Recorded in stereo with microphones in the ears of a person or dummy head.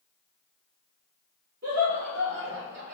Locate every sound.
1.6 s laughter: 55° right (ahead or behind), 1.2 m; by 2.9 s 45° right (ahead or behind), 0.6 m